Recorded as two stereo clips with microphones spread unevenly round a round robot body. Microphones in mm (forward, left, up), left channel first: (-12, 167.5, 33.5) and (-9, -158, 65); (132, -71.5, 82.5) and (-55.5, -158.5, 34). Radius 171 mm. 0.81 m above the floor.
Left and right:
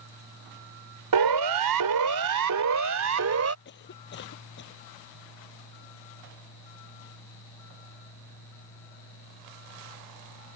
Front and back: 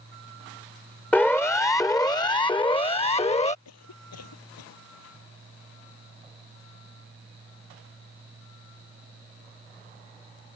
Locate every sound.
1.1 s a siren: 60° right; by 3.5 s 40° right
3.6 s a cough: 30° left